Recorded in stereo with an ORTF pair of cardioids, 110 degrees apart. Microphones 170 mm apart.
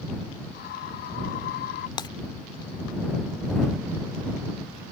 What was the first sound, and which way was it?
A scream, 70° left.